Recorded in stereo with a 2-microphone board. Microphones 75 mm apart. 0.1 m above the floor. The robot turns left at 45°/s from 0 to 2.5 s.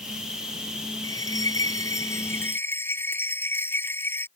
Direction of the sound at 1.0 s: 100° left.